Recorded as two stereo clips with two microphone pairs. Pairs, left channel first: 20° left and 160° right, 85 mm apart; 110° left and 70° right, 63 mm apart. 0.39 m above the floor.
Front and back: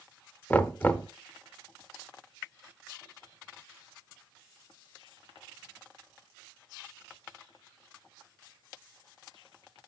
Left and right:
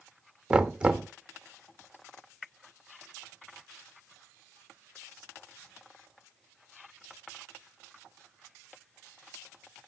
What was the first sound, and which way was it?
Knocking, 20° right.